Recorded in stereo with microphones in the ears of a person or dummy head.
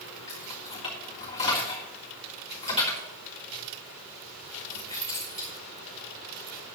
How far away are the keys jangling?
About 3.5 m.